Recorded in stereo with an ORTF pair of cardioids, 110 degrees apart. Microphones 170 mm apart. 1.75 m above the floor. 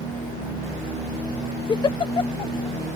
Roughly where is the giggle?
Ahead left.